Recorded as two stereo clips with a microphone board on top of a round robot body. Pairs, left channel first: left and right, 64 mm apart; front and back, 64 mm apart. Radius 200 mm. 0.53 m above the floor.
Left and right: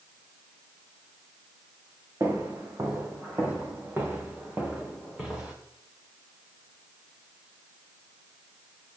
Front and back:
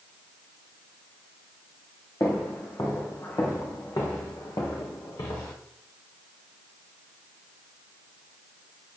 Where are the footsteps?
45° right, 3.5 m; by 5.5 s 10° right, 3 m.